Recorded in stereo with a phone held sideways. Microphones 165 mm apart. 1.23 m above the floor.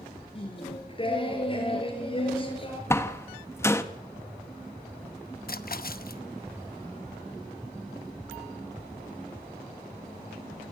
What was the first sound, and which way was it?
Singing, 30° left (ahead or behind).